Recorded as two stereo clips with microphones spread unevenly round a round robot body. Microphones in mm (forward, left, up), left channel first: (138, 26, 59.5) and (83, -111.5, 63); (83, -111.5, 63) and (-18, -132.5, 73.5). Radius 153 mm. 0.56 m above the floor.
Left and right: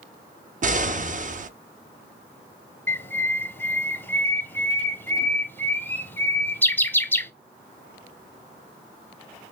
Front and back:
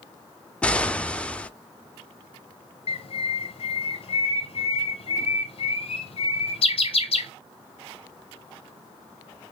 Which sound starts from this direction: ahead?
A bird, at 2.9 s.